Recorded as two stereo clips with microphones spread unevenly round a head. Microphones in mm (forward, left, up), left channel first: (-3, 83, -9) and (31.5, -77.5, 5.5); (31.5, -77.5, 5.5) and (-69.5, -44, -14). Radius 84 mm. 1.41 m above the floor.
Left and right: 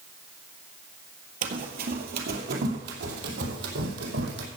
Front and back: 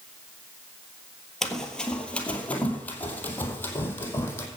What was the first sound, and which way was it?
Running footsteps, 95° right.